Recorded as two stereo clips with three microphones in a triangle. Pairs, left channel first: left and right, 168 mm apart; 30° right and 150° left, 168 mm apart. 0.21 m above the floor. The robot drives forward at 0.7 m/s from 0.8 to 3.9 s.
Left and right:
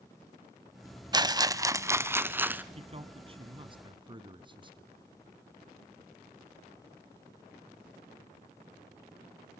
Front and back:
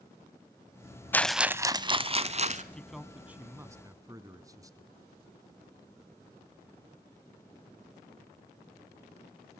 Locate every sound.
1.1 s a rattle: 90° right, 0.5 m; by 2.6 s 170° right, 1.2 m
2.7 s a man speaking: 110° right, 1.3 m; by 4.9 s 145° right, 1.7 m